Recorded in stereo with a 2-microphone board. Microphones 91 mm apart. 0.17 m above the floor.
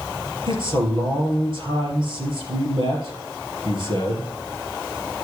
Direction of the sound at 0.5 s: 60° right (ahead or behind).